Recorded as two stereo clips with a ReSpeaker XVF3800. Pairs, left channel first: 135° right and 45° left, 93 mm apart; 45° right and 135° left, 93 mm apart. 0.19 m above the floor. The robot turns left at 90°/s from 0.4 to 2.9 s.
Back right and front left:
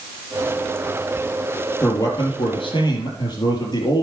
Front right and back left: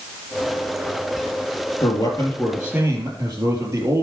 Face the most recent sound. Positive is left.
turn(degrees=-170)